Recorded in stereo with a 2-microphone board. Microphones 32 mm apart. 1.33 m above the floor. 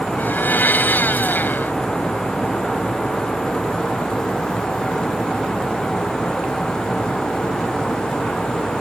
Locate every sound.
0.2 s a blender: 70° left (ahead or behind)